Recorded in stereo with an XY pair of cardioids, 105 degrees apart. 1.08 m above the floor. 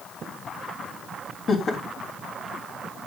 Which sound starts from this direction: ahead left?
Laughter, at 1.5 s.